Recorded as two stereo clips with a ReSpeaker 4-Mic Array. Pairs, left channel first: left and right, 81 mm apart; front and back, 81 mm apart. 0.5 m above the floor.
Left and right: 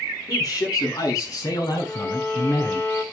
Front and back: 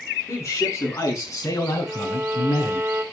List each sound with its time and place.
0.3 s a man speaking: 50° left, 7 m; by 2.8 s 45° left, 5 m
1.8 s a violin: 135° left, 1.7 m